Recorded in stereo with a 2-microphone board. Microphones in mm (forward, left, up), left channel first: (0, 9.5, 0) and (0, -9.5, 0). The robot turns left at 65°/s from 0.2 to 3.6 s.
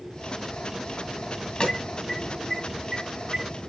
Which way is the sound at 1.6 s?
55° left (ahead or behind).